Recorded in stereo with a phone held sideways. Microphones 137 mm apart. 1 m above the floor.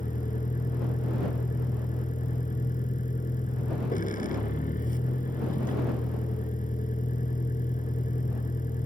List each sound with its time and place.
0.0 s a vehicle: 80° left